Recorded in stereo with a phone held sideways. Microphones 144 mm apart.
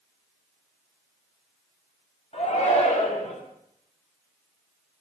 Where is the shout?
50° left (ahead or behind), 7 m.